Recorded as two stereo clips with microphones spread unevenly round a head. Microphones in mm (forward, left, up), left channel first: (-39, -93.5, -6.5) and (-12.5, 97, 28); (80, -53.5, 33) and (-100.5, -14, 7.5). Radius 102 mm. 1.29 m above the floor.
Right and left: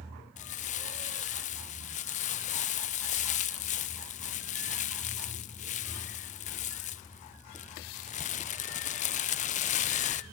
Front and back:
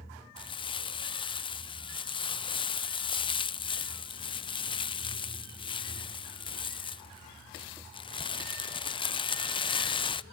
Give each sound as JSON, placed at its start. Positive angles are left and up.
{"t": 0.4, "sound": "crumpling", "azimuth_deg": -75, "distance_m": 0.5}